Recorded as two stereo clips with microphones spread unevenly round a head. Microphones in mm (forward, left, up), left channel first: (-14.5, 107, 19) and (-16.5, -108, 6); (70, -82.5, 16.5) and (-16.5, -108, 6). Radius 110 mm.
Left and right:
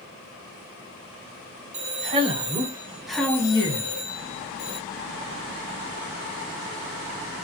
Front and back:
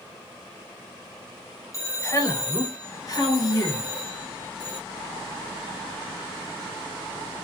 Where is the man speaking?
40° right, 1.3 m; by 4.8 s 90° left, 1.1 m.